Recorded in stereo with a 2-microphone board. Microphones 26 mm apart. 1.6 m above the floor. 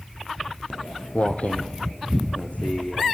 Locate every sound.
0.7 s footsteps: 40° left (ahead or behind), 2 m; by 3.1 s 60° left (ahead or behind), 5 m